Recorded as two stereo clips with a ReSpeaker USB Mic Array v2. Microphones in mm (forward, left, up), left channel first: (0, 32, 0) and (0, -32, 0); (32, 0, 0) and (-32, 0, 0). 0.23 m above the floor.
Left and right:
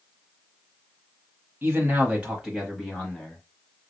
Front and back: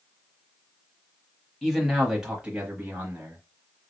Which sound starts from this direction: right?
A man speaking, at 1.6 s.